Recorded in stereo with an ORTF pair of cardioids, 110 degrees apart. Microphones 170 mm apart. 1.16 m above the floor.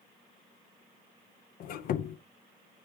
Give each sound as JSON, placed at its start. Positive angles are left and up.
{"t": 1.6, "sound": "a squeak", "azimuth_deg": 60, "distance_m": 0.5}